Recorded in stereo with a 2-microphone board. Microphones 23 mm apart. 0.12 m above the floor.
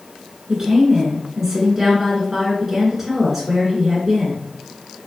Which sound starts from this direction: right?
A woman speaking, at 0.5 s.